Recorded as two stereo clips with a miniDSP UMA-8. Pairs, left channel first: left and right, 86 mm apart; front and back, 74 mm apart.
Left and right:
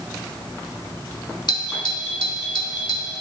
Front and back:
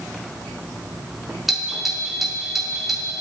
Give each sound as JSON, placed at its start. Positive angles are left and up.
{"t": 1.5, "sound": "a doorbell", "azimuth_deg": 95, "distance_m": 2.0}